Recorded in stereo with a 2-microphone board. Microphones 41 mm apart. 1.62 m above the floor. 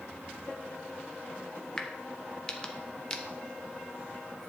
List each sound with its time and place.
1.8 s a crack: 20° left (ahead or behind), 1.2 m